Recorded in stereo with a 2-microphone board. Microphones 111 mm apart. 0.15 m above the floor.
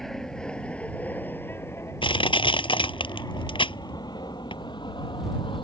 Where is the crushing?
50° left (ahead or behind).